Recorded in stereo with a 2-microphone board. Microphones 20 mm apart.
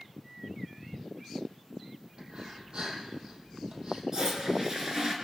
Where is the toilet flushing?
30° right (ahead or behind), 4.5 m.